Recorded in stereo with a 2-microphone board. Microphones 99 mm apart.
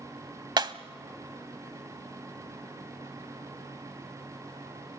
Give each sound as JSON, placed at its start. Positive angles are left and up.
{"t": 0.6, "sound": "breaking glass", "side_deg": -50, "distance_m": 0.7}